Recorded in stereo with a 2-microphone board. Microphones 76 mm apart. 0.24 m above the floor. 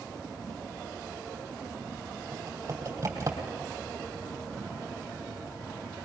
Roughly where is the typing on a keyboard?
Right.